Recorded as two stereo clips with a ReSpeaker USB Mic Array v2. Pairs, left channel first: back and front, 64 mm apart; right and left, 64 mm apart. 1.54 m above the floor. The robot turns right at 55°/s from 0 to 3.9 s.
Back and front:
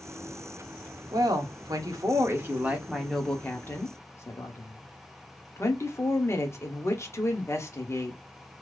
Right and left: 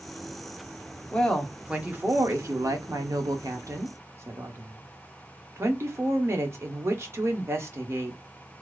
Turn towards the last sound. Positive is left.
turn(degrees=135)